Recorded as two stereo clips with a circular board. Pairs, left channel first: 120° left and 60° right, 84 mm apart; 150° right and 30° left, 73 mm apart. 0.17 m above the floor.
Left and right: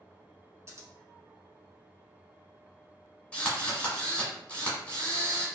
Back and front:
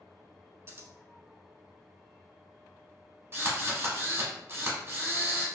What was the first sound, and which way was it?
Scissors, 15° right.